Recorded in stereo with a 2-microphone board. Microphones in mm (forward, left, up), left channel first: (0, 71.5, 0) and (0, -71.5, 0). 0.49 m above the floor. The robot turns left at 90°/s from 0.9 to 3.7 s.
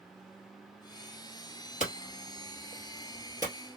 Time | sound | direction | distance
1.8 | hammering | 60° left (ahead or behind) | 2 m